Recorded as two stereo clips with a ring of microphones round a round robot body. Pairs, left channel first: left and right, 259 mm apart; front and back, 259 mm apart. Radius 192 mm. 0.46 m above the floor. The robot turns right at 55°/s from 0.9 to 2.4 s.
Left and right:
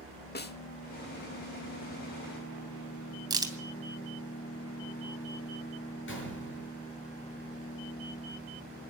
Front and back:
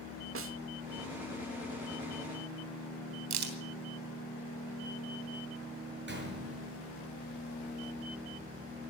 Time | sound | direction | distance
0.3 | a snare drum | 145° left | 1.1 m
3.3 | a crack | 165° right | 3 m
6.1 | a gunshot | 135° left | 6 m